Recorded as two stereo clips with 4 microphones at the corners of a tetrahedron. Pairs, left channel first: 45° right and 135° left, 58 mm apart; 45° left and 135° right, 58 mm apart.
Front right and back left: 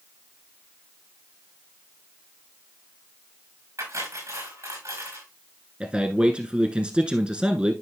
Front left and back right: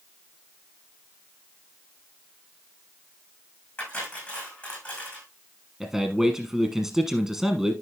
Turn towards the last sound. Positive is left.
turn(degrees=160)